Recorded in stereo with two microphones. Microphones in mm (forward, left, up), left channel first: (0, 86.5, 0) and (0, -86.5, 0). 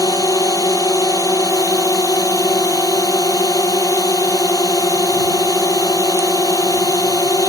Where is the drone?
20° left (ahead or behind).